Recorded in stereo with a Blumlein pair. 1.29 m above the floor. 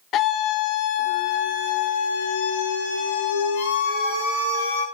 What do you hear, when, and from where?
0.1 s a scream: 35° left, 1.3 m; by 4.8 s 55° left, 4 m